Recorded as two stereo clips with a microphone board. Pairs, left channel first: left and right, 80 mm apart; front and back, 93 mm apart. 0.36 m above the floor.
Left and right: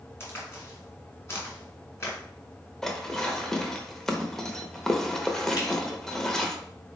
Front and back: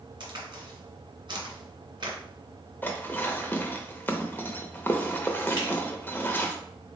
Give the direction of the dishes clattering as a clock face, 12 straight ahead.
11 o'clock.